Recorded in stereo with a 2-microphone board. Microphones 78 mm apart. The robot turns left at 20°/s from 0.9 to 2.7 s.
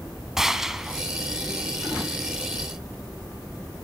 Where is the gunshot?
5° right (ahead or behind), 1.2 m; by 1.0 s 10° right (ahead or behind), 1.2 m.